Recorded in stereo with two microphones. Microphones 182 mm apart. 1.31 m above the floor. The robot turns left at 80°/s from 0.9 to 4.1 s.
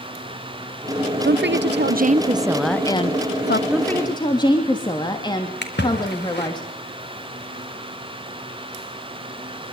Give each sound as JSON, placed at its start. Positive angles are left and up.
{"t": 1.2, "sound": "a woman speaking", "azimuth_deg": -65, "distance_m": 0.6}
{"t": 3.7, "sound": "a woman speaking", "azimuth_deg": -175, "distance_m": 3.0}
{"t": 5.6, "sound": "a splash", "side_deg": 75, "distance_m": 4.0}